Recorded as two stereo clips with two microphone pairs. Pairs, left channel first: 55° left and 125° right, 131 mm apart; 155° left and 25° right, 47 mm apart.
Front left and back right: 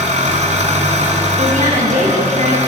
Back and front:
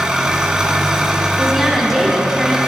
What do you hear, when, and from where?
0.0 s an engine running: 100° right, 1.7 m
1.4 s a woman speaking: 110° right, 4 m